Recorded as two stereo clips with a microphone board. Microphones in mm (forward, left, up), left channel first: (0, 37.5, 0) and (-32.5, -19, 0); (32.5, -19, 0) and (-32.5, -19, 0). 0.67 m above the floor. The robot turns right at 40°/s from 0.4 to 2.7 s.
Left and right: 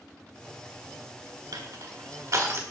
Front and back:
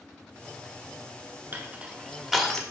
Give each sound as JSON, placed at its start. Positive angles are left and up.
{"t": 1.5, "sound": "crushing", "azimuth_deg": -125, "distance_m": 1.0}